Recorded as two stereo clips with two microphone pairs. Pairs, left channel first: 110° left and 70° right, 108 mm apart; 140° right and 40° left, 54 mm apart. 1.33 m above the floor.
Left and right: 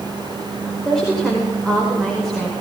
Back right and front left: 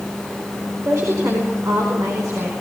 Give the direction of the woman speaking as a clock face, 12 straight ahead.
11 o'clock.